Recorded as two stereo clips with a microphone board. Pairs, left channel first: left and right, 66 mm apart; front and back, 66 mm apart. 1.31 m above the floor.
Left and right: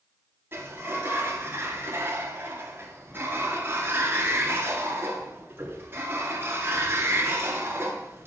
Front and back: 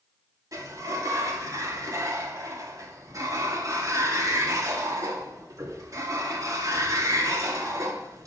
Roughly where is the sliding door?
Behind right.